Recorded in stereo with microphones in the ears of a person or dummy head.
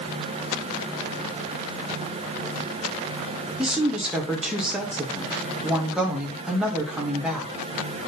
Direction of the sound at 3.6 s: Centre (ahead or behind).